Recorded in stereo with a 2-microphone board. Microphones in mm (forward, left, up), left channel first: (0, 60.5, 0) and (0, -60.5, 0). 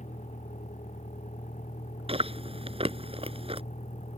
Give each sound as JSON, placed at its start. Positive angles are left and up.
{"t": 0.0, "sound": "a vehicle", "side_deg": 85}
{"t": 2.1, "sound": "chewing", "side_deg": -50}